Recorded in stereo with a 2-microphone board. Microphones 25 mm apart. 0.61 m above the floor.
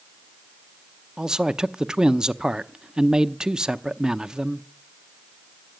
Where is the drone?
I don't hear a drone.